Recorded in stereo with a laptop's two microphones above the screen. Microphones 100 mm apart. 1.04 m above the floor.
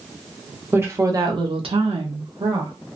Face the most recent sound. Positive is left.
turn(degrees=-55)  # may be behind; listen again after turning